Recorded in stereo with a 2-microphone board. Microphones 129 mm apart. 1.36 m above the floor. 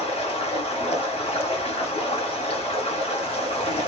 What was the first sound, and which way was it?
Running water, 55° left (ahead or behind).